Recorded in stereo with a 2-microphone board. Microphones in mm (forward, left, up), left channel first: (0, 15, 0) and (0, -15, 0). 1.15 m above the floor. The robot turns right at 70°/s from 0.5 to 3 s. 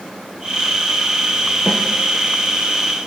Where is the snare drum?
15° left (ahead or behind), 1.9 m; by 1.8 s 25° left (ahead or behind), 1.9 m.